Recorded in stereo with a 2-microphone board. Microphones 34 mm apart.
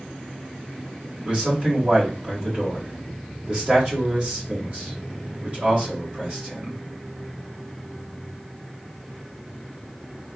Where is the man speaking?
30° right (ahead or behind), 1.9 m.